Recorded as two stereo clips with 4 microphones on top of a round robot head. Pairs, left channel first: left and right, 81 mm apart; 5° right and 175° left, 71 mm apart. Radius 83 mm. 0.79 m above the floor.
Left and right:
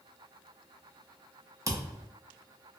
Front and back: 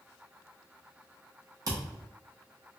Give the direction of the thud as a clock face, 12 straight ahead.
5 o'clock.